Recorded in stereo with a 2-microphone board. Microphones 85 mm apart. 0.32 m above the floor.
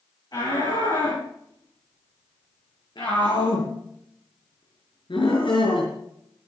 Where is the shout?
55° left (ahead or behind), 8.5 m; by 5.9 s 75° left (ahead or behind), 5 m.